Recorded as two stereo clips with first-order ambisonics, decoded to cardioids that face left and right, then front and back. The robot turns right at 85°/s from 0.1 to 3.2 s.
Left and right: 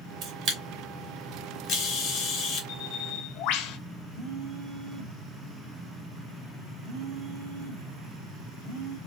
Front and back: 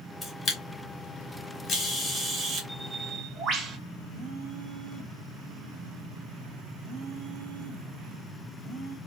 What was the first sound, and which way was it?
A camera shutter, 75° right.